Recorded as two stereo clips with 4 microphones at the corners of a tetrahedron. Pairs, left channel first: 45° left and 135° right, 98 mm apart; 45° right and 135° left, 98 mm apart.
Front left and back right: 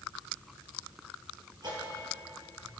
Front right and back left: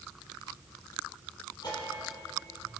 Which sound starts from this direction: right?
A bell, at 1.6 s.